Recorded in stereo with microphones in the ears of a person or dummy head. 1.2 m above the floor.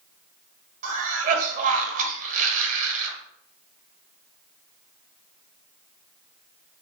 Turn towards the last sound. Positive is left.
turn(degrees=-40)  # may be behind; listen again after turning